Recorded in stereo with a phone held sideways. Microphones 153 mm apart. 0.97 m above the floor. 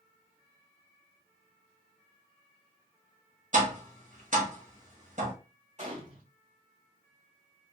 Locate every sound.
3.5 s tapping: 55° right (ahead or behind), 1.3 m
5.8 s a gunshot: 55° right (ahead or behind), 1.5 m